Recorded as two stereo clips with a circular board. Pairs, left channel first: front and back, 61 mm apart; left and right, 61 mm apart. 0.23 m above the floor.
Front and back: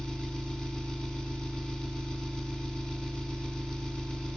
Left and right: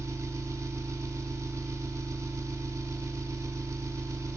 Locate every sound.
0.0 s an engine running: 75° right, 0.9 m